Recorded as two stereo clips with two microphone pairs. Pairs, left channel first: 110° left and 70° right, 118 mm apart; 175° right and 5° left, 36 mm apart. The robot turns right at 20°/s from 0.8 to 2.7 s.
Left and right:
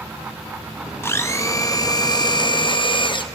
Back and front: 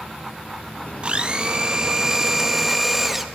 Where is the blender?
50° left, 0.7 m; by 3.2 s 85° left, 0.7 m.